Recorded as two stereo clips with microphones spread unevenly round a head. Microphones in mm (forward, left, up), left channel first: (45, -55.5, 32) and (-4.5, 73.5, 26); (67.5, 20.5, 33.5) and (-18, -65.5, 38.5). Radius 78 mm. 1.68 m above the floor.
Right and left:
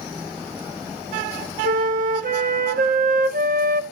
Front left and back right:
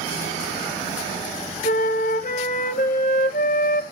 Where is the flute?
85° left, 1.0 m.